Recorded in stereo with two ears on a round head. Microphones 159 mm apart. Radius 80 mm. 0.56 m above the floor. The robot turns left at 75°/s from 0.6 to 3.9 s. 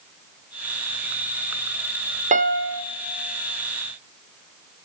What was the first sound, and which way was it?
A piano, 45° right.